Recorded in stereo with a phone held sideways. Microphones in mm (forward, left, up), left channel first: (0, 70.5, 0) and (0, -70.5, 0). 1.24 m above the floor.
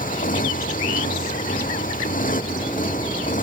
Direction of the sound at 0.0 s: 75° left (ahead or behind).